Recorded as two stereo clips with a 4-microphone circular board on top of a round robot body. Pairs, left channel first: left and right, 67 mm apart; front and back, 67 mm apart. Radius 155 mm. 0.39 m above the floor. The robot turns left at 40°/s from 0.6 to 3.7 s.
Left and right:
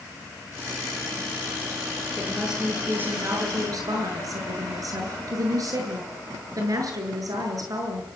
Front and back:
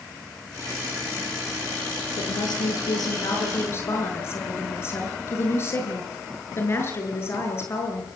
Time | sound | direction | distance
2.2 | a woman speaking | 10° left | 8 m